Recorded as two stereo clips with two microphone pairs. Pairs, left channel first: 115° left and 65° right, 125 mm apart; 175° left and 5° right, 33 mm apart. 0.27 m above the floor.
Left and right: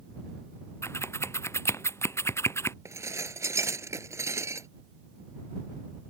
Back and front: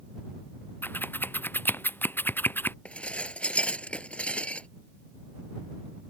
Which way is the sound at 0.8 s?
175° right.